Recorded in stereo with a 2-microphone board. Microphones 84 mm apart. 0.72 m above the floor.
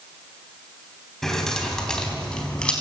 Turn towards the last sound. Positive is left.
turn(degrees=10)  # may be behind; listen again after turning